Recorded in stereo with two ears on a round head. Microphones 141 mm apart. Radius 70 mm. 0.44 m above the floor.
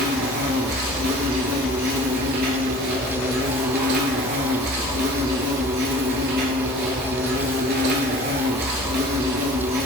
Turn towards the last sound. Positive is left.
turn(degrees=-65)  # may be behind; listen again after turning